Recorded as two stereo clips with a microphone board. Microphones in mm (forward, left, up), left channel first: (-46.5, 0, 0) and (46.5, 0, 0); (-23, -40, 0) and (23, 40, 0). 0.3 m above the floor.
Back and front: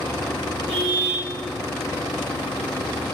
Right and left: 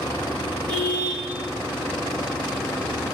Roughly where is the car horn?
Ahead.